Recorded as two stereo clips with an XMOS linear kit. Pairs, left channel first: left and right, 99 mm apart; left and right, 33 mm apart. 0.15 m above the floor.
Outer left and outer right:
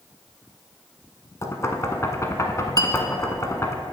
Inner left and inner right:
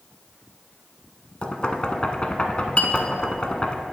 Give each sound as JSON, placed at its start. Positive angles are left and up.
{"t": 1.4, "sound": "knocking", "side_deg": 30, "distance_m": 0.9}
{"t": 2.8, "sound": "a clink", "side_deg": 40, "distance_m": 0.8}